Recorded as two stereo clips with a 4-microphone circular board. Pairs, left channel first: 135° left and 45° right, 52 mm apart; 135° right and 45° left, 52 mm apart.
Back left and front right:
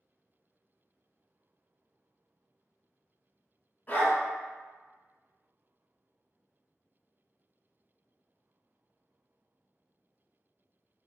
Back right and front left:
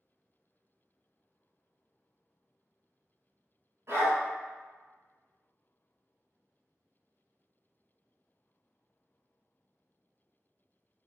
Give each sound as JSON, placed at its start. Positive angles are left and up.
{"t": 3.9, "sound": "a dog barking", "azimuth_deg": 80, "distance_m": 1.9}